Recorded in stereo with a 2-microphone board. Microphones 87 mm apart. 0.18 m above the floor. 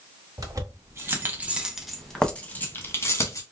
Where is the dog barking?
I don't hear a dog barking.